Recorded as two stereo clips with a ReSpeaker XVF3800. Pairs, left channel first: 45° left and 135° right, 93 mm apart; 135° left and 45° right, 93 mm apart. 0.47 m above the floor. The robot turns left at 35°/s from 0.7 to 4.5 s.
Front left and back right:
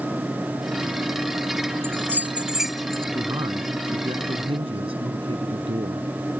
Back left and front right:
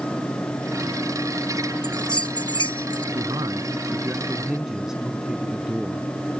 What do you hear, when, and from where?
1.8 s a bell: 170° left; by 3.0 s 125° left
3.1 s a man speaking: 80° right; by 6.1 s 130° right